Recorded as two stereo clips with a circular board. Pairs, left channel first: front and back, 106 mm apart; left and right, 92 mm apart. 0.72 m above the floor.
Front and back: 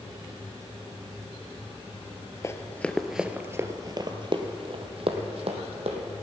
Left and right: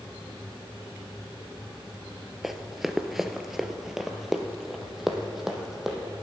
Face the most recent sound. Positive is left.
turn(degrees=180)